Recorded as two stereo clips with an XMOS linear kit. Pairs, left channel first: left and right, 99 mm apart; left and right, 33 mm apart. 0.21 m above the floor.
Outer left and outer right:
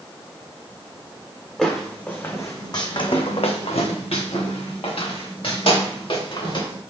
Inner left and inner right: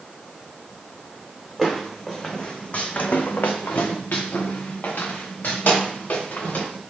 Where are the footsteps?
5° left (ahead or behind), 1.0 m; by 6.8 s 55° left (ahead or behind), 2.5 m.